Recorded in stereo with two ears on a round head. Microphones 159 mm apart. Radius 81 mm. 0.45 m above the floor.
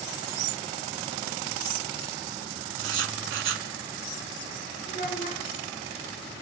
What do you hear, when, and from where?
2.8 s writing: 80° right, 0.9 m
4.9 s a child speaking: 50° left (ahead or behind), 1.7 m